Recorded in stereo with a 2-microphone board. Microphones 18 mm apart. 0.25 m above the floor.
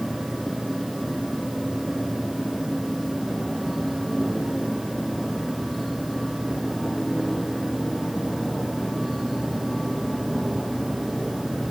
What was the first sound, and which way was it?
Only background noise.